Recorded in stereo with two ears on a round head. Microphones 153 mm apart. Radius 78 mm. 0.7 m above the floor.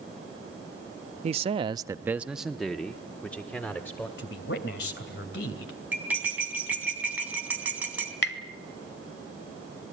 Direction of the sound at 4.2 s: 65° left (ahead or behind).